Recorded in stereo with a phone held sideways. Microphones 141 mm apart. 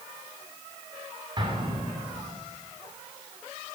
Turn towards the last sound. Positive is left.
turn(degrees=-35)  # may be behind; listen again after turning